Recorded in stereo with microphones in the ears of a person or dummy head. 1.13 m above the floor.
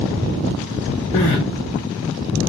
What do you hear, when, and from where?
1.1 s crying: 35° left (ahead or behind), 1.1 m